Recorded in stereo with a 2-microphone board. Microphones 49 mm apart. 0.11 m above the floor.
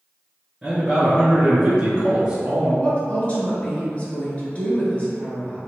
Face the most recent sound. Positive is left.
turn(degrees=25)  # may be behind; listen again after turning